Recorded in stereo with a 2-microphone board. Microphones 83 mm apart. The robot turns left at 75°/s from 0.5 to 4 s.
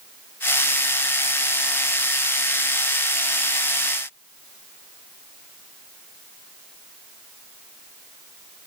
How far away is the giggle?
I don't hear a giggle.